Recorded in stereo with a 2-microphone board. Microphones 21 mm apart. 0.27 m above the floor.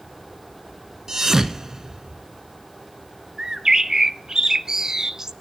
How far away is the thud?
About 1.1 m.